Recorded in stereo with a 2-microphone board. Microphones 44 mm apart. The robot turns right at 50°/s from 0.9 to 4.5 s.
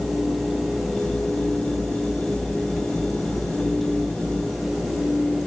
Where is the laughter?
I don't hear laughter.